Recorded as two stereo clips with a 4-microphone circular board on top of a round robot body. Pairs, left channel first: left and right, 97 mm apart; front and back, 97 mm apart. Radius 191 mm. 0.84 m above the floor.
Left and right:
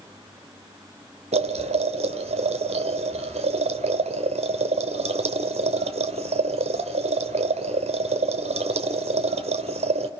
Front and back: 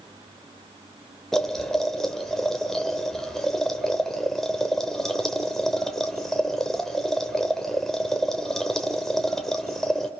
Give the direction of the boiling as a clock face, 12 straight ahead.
3 o'clock.